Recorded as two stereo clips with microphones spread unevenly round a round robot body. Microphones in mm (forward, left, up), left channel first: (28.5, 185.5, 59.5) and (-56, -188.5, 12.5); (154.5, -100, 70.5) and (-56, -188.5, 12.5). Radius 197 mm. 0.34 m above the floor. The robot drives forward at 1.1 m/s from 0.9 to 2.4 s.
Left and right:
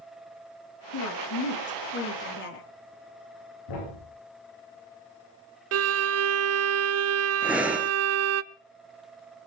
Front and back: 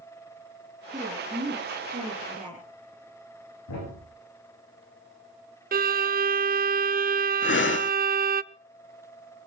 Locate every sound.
0.9 s a woman speaking: 125° left, 4 m; by 2.7 s 140° left, 5 m
3.7 s a thud: 40° left, 9.5 m
5.7 s a violin: 135° right, 0.5 m
7.4 s breathing: 15° right, 0.9 m